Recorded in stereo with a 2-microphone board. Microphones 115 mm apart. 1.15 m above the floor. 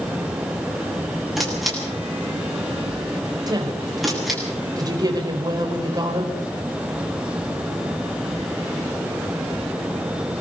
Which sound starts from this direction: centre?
A camera shutter, at 1.4 s.